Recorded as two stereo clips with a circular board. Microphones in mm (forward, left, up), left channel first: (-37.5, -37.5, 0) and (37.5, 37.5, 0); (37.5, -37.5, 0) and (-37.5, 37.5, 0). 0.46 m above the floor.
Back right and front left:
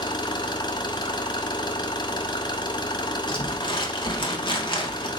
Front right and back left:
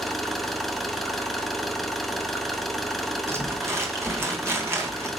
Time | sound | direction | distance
0.0 | an engine running | 135° right | 0.9 m
3.3 | crumpling | 165° right | 1.5 m